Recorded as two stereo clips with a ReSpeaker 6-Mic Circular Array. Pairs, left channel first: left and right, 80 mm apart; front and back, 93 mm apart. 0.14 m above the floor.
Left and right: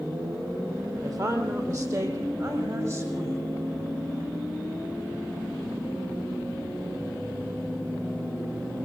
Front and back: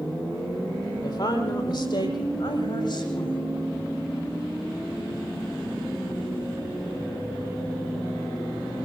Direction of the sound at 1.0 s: 45° right.